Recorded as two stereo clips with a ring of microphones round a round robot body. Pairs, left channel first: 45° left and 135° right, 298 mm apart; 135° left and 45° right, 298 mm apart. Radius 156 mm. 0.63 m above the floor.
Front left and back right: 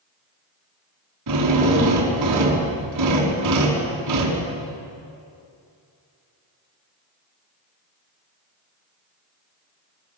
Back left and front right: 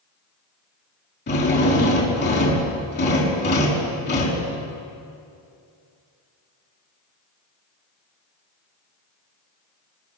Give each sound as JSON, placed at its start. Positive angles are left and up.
{"t": 1.3, "sound": "a drill", "azimuth_deg": -165, "distance_m": 5.5}